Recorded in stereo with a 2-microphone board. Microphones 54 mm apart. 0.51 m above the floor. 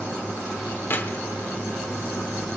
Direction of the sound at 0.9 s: 40° left (ahead or behind).